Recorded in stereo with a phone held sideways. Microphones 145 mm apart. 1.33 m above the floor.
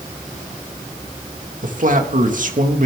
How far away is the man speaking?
About 1.9 m.